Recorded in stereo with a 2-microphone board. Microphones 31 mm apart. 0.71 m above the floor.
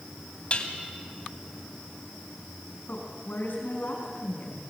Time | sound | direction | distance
0.5 | dishes clattering | 40° left (ahead or behind) | 2.5 m
2.9 | a woman speaking | 70° left (ahead or behind) | 5.5 m